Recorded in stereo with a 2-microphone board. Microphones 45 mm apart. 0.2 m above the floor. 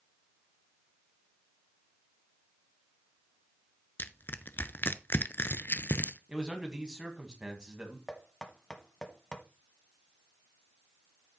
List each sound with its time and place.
4.0 s crushing: 50° left (ahead or behind), 0.5 m
6.3 s a man speaking: 20° right (ahead or behind), 1.6 m
8.1 s knocking: 15° left (ahead or behind), 1.2 m